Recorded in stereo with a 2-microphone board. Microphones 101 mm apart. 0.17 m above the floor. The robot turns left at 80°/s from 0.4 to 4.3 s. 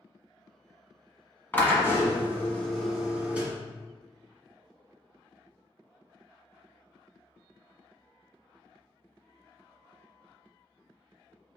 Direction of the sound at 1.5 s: 20° left (ahead or behind).